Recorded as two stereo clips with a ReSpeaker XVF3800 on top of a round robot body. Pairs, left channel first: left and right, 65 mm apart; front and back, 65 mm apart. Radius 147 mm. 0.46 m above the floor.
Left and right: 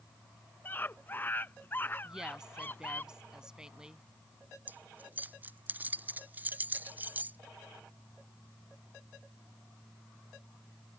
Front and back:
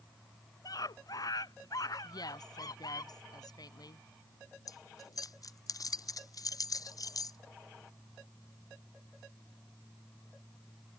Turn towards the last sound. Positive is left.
turn(degrees=-25)